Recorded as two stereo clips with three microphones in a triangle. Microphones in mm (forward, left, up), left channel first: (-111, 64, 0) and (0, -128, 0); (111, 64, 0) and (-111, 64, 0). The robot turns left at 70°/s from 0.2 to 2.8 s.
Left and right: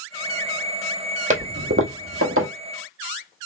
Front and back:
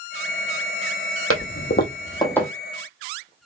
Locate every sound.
1.3 s a toilet flushing: 5° right, 1.1 m; by 2.5 s 90° right, 1.1 m